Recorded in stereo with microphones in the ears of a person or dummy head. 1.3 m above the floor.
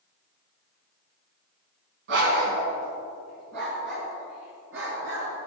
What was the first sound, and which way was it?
A dog barking, 65° right (ahead or behind).